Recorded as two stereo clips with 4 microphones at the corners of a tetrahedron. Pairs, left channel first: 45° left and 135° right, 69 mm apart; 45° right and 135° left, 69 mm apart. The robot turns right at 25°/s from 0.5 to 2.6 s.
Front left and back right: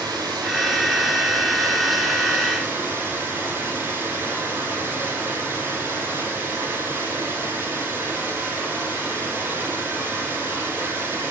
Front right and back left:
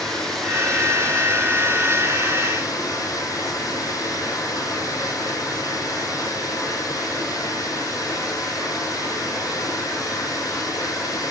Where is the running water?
130° right, 3 m; by 11.3 s 75° right, 3 m.